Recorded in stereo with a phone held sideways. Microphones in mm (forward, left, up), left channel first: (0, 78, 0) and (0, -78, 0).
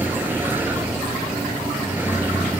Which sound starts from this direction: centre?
A vehicle, at 0.0 s.